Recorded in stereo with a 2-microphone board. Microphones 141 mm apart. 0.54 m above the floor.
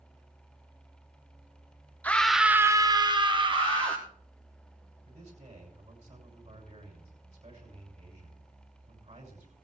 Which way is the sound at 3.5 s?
10° left (ahead or behind).